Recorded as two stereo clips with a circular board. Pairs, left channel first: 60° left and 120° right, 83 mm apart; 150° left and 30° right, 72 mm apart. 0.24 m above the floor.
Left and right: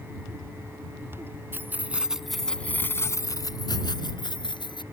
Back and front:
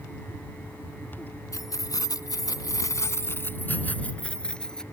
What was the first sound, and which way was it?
Keys jangling, straight behind.